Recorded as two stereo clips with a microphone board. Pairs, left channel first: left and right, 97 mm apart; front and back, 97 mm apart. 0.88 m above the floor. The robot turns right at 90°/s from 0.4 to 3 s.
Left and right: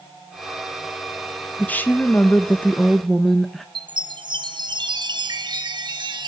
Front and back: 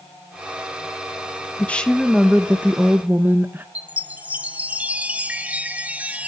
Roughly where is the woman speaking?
Ahead left.